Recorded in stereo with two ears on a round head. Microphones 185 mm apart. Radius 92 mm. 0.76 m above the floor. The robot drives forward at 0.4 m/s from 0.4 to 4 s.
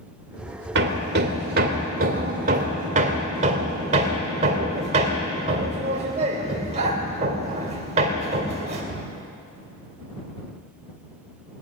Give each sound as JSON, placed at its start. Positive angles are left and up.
{"t": 0.8, "sound": "hammering", "side_deg": -55, "distance_m": 1.7}